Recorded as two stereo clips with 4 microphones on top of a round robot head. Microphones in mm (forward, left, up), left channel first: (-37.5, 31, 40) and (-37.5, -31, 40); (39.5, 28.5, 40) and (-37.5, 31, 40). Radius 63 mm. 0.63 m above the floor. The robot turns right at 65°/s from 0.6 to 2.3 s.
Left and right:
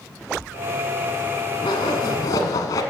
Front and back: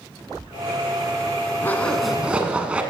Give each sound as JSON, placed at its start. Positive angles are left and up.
{"t": 1.6, "sound": "a zipper", "azimuth_deg": 60, "distance_m": 0.9}